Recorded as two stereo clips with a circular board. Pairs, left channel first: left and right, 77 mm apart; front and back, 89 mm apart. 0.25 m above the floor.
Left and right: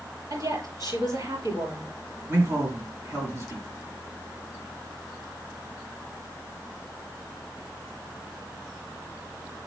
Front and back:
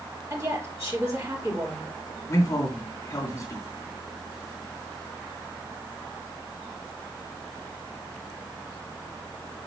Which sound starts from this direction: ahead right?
A man speaking, at 2.3 s.